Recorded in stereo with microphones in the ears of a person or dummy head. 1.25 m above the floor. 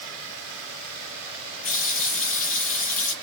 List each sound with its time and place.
1.6 s a running tap: 40° left (ahead or behind), 0.7 m